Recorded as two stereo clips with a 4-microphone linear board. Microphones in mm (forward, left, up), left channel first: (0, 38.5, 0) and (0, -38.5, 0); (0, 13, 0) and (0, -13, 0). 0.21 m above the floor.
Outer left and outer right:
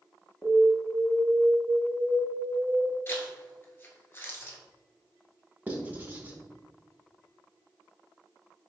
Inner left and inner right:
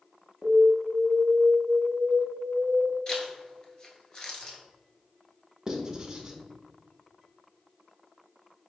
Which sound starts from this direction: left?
A zipper, at 3.1 s.